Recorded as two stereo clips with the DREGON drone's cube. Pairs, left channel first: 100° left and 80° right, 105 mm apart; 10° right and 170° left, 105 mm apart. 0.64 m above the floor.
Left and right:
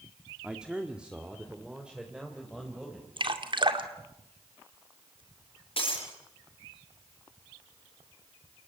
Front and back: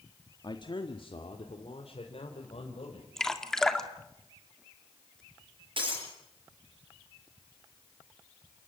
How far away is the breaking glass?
About 8.5 m.